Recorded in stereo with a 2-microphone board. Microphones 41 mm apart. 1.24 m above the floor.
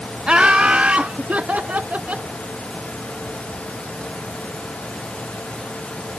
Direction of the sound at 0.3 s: 25° right (ahead or behind).